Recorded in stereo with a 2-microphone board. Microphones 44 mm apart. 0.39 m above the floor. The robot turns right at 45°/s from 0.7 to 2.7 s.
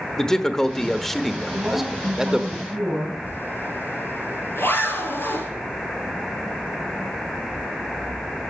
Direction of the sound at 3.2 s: 60° left (ahead or behind).